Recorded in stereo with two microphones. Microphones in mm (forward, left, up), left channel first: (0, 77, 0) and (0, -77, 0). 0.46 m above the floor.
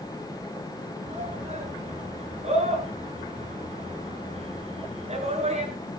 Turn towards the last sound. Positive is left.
turn(degrees=-40)  # may be behind; listen again after turning